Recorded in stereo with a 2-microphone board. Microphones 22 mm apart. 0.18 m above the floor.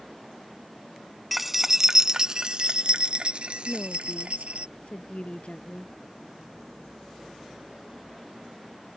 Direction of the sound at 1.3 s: 5° right (ahead or behind).